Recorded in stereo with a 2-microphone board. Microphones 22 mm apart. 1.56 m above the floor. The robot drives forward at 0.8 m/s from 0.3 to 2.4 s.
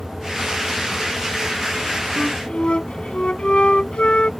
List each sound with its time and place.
2.2 s a flute: 50° left (ahead or behind); by 4.3 s 55° left (ahead or behind)